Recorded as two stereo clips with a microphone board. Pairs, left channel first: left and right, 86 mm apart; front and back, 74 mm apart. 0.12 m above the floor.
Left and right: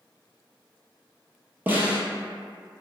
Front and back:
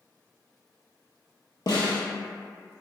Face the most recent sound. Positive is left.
turn(degrees=-20)